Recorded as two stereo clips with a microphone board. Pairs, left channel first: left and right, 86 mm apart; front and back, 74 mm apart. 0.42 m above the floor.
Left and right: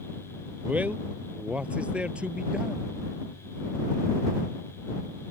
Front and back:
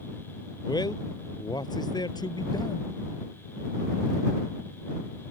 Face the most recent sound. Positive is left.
turn(degrees=-10)